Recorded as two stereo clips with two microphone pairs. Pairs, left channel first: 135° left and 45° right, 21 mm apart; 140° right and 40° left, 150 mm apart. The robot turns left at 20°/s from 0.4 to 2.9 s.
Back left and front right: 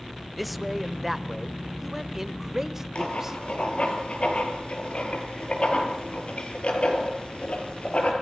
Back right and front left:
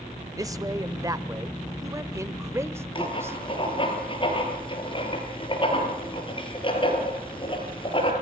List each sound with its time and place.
0.4 s a man speaking: 50° left, 0.9 m; by 3.4 s straight ahead, 0.9 m
3.0 s writing: 165° left, 4 m